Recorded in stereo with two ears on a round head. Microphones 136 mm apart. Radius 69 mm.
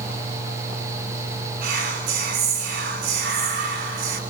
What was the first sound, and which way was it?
Whispering, 70° right (ahead or behind).